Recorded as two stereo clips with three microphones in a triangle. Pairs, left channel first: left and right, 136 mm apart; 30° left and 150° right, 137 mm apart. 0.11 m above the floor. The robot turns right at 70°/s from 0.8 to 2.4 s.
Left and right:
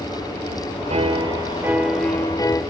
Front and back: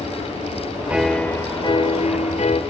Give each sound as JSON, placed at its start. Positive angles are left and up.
{"t": 0.9, "sound": "a piano", "azimuth_deg": -70, "distance_m": 0.7}